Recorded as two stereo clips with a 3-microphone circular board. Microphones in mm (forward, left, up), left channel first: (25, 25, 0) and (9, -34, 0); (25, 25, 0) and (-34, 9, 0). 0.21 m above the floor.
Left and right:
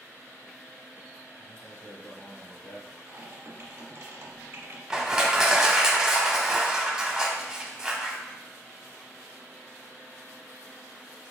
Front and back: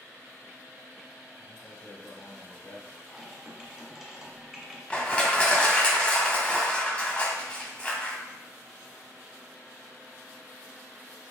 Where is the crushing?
40° right, 0.7 m.